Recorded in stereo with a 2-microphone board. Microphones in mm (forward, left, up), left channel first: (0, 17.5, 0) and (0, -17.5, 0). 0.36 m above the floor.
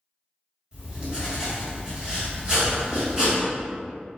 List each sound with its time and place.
0.7 s writing: 25° right (ahead or behind), 1.6 m